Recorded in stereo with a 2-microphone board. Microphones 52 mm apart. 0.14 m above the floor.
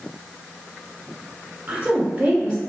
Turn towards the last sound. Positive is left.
turn(degrees=-30)  # may be behind; listen again after turning